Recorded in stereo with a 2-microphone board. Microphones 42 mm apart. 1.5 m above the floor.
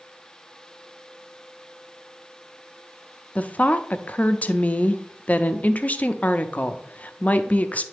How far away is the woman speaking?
About 0.5 m.